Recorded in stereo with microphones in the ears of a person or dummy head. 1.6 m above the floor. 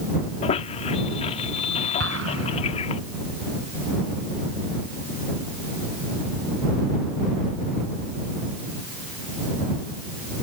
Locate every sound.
0.4 s a squeak: 40° left (ahead or behind)
2.0 s an explosion: 85° right